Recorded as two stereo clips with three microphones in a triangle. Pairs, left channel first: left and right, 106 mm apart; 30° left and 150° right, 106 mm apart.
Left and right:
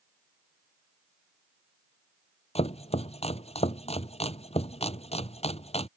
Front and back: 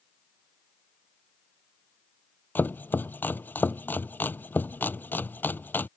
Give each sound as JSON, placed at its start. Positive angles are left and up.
{"t": 2.5, "sound": "chopping", "azimuth_deg": 105}